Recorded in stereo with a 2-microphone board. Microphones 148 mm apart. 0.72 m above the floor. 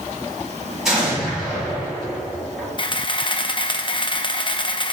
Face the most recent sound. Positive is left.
turn(degrees=35)  # may be behind; listen again after turning